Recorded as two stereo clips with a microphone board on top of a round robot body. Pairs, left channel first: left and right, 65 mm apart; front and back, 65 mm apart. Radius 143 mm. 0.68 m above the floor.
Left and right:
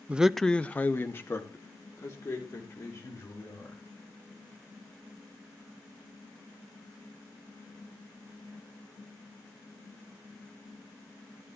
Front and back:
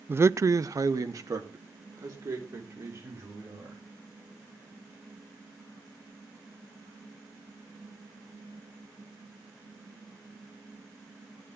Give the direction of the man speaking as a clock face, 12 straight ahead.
5 o'clock.